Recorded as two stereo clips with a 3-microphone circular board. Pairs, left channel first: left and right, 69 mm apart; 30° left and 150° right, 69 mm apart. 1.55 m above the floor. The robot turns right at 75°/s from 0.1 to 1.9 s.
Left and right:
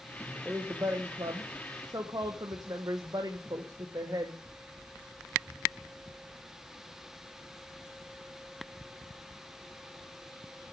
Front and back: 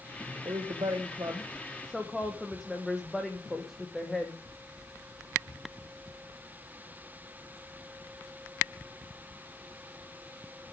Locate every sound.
0.5 s a woman speaking: 170° right, 1.3 m; by 4.3 s 60° right, 1.3 m